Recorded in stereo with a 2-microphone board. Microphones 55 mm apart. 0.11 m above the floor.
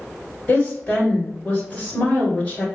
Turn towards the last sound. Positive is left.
turn(degrees=20)  # may be behind; listen again after turning